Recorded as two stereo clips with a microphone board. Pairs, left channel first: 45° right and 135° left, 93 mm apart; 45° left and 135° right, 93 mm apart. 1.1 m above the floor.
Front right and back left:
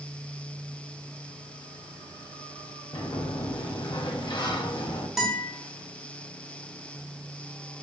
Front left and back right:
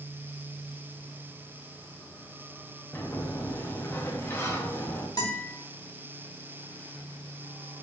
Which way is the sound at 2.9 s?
15° right.